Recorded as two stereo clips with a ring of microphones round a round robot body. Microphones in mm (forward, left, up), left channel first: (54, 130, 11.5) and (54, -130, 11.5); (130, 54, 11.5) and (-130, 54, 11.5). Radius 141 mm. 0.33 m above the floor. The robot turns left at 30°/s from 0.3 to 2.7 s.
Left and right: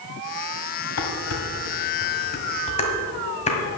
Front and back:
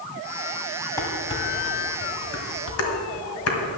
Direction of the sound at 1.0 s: 80° left.